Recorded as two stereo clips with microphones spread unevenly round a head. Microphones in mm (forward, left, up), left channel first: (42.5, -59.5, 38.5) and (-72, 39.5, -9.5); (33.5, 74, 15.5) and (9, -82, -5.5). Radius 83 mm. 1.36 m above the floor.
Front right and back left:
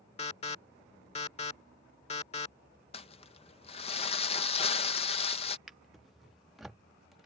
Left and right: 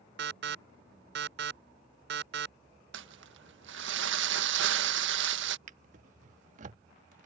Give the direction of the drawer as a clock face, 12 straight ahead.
3 o'clock.